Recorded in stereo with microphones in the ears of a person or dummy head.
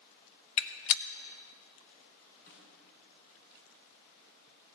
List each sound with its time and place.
0.6 s a gunshot: 60° left (ahead or behind), 0.9 m
2.5 s a snare drum: 55° left (ahead or behind), 6 m